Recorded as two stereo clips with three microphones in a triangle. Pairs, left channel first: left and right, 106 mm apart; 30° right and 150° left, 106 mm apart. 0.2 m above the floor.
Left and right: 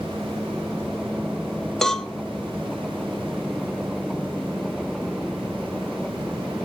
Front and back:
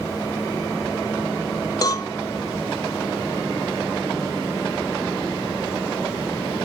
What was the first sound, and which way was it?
A cowbell, 5° left.